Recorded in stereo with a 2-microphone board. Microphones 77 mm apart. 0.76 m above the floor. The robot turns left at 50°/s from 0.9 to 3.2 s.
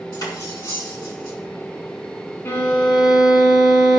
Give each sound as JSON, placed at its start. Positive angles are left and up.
{"t": 0.1, "sound": "cutlery clinking", "side_deg": 65, "distance_m": 4.5}
{"t": 2.5, "sound": "a violin", "azimuth_deg": 35, "distance_m": 3.0}